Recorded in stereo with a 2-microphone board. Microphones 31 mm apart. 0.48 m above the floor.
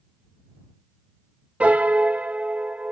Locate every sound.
1.6 s a piano: 45° right (ahead or behind)